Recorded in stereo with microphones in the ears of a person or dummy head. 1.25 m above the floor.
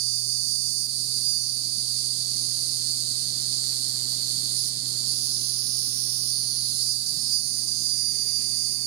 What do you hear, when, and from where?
0.0 s an insect: 80° right, 0.7 m